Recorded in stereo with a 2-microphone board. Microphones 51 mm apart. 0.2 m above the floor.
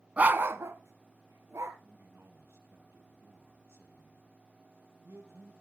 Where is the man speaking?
60° right (ahead or behind), 3.5 m.